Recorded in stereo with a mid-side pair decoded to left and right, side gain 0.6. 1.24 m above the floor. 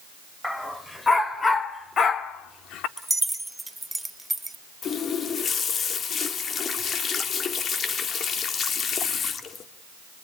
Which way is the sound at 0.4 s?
10° left.